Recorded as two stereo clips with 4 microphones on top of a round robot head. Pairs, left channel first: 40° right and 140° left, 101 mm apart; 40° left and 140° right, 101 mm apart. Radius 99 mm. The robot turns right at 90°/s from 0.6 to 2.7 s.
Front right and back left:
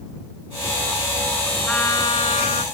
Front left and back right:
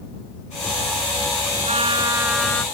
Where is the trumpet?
120° right; by 2.6 s 35° right.